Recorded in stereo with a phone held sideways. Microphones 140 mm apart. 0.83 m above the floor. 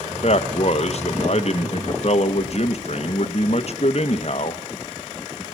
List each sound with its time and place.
0.1 s a man speaking: 50° left (ahead or behind), 0.8 m